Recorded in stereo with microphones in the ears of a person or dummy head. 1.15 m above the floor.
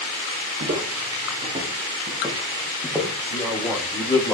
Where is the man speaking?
15° left (ahead or behind), 5.5 m.